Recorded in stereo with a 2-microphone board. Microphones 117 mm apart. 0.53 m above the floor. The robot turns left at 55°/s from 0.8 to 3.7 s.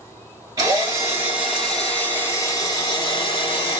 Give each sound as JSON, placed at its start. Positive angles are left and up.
{"t": 0.6, "sound": "a drill", "azimuth_deg": -130, "distance_m": 1.4}